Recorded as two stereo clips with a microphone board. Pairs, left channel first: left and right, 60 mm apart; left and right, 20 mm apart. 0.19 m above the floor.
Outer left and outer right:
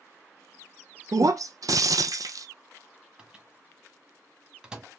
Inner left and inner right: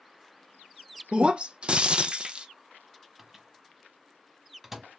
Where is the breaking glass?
75° right (ahead or behind), 0.5 m.